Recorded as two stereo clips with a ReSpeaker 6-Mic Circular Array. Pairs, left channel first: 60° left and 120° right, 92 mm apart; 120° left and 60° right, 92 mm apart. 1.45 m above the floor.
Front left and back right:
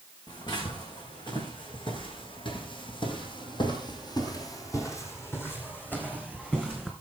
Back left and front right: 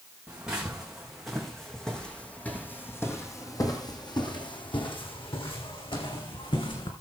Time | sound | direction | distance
0.3 | footsteps | 20° left | 4 m